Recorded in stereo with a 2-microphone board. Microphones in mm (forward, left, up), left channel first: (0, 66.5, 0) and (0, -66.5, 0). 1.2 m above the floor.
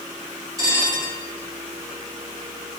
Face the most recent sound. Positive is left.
turn(degrees=-25)  # may be behind; listen again after turning